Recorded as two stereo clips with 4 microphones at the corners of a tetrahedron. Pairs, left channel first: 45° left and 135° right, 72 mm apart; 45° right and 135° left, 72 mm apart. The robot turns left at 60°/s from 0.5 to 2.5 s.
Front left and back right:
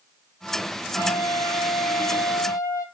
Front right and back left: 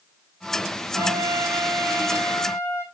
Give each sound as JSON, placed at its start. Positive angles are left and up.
{"t": 0.9, "sound": "a trumpet", "azimuth_deg": 100, "distance_m": 1.2}